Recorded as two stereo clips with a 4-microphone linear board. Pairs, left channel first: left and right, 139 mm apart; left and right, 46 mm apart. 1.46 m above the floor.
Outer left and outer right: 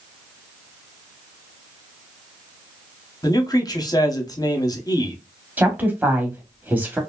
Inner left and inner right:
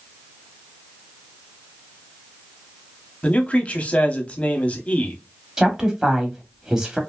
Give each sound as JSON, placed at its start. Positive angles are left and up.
{"t": 3.2, "sound": "a man speaking", "side_deg": 25, "distance_m": 0.9}
{"t": 5.6, "sound": "a woman speaking", "side_deg": -10, "distance_m": 1.0}